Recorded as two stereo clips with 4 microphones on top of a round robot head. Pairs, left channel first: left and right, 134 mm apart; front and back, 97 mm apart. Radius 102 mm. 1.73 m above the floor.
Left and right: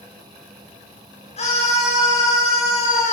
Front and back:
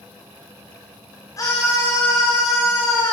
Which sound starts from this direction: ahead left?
A scream, at 1.4 s.